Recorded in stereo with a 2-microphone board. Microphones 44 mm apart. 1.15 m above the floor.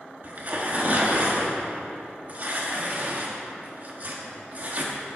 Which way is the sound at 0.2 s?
40° right (ahead or behind).